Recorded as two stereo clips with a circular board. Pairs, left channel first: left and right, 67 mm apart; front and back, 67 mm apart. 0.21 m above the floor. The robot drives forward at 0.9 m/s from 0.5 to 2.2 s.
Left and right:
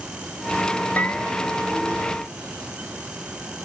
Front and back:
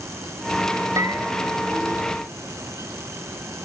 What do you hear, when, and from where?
1.0 s a bell: 155° left, 1.9 m; by 2.0 s 160° left, 3 m